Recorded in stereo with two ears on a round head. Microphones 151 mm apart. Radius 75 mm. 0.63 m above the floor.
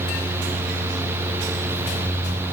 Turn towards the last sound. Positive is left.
No sound to turn to.